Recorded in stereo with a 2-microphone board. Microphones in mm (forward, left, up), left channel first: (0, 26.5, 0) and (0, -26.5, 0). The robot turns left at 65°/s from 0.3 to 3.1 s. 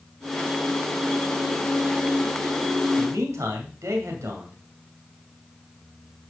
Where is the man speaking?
75° right (ahead or behind), 2 m; by 4.6 s 70° right (ahead or behind), 2 m.